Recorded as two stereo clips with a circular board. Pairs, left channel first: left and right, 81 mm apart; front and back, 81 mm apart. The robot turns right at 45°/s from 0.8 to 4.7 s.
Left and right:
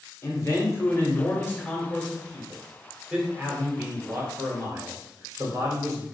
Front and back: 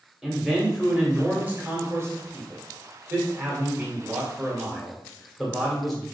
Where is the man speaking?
100° left, 1.5 m; by 6.0 s 85° right, 1.5 m.